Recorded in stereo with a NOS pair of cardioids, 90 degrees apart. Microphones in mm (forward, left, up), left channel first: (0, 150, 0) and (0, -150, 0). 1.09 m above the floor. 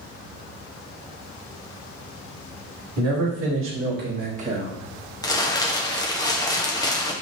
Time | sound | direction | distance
3.0 | a man speaking | 60° right | 2.0 m
5.2 | crumpling | 10° left | 0.9 m